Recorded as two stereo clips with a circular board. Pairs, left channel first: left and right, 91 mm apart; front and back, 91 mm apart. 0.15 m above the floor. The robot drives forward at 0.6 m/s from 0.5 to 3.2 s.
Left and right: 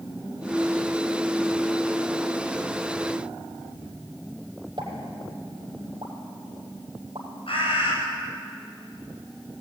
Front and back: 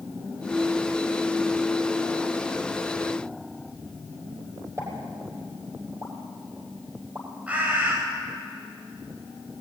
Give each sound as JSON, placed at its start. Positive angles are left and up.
{"t": 4.8, "sound": "a pop", "azimuth_deg": -120, "distance_m": 4.5}
{"t": 7.5, "sound": "a bird", "azimuth_deg": 105, "distance_m": 10.0}